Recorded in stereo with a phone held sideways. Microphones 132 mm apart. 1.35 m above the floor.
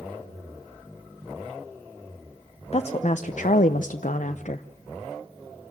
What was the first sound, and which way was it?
A woman speaking, 50° left (ahead or behind).